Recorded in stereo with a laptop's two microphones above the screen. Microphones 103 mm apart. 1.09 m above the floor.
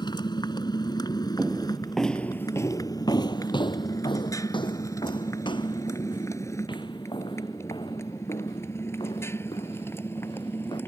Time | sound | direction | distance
0.0 | a motorcycle | 45° left (ahead or behind) | ?
1.4 | footsteps | 10° right (ahead or behind) | ?